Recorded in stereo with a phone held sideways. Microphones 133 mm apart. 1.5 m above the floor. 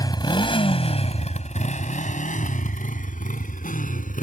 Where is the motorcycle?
30° left (ahead or behind); by 4.2 s 80° left.